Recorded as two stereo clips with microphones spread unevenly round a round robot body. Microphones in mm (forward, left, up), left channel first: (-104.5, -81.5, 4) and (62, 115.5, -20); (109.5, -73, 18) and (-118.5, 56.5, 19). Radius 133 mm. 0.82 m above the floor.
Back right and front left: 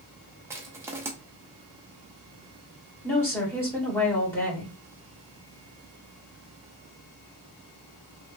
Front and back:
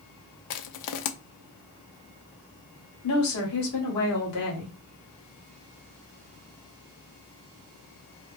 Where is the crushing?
30° right, 0.5 m.